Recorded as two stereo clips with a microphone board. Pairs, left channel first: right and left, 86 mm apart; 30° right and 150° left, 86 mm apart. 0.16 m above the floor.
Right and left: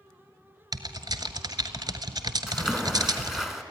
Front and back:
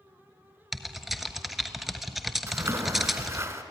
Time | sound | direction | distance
0.7 | typing on a keyboard | 60° left | 1.2 m
2.5 | a splash | 175° left | 1.6 m